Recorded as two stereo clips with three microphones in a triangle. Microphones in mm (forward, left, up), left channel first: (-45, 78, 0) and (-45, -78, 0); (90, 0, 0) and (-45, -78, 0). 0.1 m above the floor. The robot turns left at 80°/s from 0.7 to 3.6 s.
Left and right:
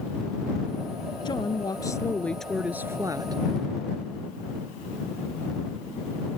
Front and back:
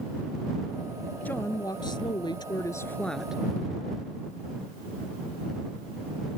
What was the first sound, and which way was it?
A woman speaking, 100° left.